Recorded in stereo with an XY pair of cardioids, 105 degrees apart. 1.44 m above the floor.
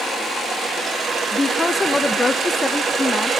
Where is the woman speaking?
15° left, 0.9 m.